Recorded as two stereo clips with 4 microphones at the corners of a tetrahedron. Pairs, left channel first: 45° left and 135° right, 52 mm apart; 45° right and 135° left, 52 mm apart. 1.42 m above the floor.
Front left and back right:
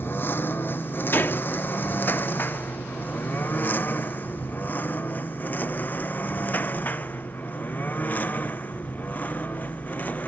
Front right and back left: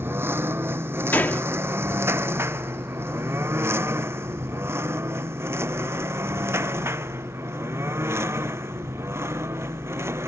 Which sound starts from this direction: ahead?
A gunshot, at 1.1 s.